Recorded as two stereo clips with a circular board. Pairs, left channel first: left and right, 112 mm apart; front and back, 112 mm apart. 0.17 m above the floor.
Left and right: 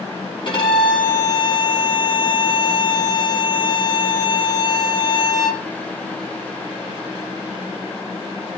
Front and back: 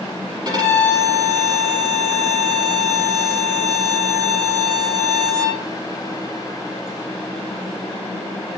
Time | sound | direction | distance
0.5 | a violin | 130° left | 4.5 m